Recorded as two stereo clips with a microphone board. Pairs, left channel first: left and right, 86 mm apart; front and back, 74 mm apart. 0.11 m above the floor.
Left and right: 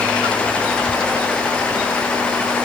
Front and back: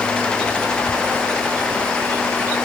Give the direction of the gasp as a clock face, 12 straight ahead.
I don't hear a gasp.